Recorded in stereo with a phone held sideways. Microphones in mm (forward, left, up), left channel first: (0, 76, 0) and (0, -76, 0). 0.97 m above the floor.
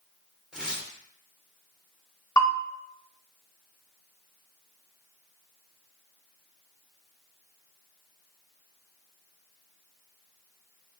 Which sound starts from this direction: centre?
Tearing paper, at 0.5 s.